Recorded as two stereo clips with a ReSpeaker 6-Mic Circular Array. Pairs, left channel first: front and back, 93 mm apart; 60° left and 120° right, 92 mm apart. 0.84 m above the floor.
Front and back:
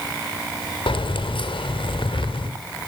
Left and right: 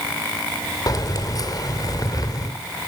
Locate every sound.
0.9 s keys jangling: 15° left, 2.5 m